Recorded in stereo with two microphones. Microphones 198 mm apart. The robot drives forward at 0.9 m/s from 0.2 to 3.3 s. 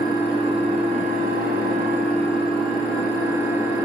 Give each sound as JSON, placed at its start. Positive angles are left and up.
{"t": 0.0, "sound": "an engine running", "side_deg": -25, "distance_m": 1.3}